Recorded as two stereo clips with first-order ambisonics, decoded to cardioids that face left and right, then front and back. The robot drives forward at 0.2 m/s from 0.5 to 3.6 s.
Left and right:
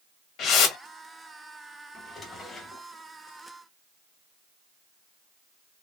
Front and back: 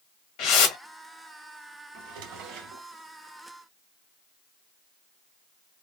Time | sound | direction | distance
0.4 | a whoosh | 35° left | 0.9 m
1.9 | a drawer | 165° left | 0.9 m